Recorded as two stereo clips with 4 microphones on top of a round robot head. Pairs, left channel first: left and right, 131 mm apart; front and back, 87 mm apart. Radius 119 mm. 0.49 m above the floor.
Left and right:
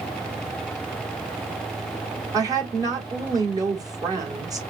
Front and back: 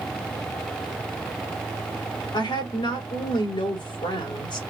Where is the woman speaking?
30° right, 3 m.